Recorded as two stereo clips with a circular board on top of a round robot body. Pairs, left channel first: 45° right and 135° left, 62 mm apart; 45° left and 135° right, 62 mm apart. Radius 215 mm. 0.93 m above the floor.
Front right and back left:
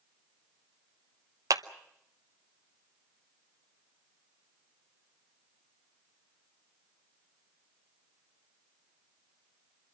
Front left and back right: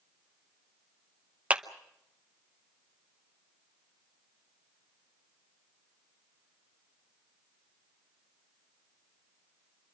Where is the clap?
155° left, 1.1 m.